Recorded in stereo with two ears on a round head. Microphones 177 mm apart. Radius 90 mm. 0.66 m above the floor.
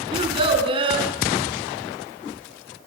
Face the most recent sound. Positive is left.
turn(degrees=-30)  # may be behind; listen again after turning